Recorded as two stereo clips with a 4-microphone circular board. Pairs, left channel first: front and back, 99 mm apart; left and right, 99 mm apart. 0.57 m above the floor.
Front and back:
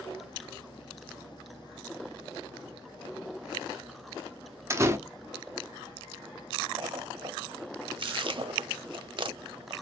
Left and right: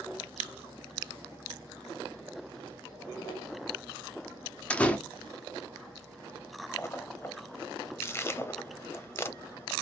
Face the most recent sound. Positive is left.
turn(degrees=150)